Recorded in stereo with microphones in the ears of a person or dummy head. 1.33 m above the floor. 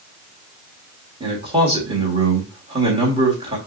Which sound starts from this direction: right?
A man speaking, at 1.2 s.